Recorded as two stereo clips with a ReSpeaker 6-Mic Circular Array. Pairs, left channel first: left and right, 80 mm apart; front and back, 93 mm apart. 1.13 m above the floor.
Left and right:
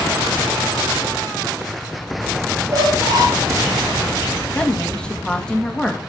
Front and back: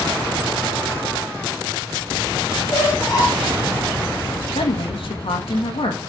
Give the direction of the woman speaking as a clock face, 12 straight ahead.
12 o'clock.